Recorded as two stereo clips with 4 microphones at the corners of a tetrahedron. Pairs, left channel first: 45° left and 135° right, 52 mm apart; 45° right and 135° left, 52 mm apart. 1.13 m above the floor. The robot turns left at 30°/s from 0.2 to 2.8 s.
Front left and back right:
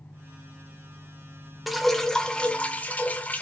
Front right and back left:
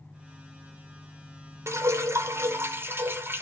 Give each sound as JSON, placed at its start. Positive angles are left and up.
{"t": 1.7, "sound": "dripping", "azimuth_deg": 135, "distance_m": 1.0}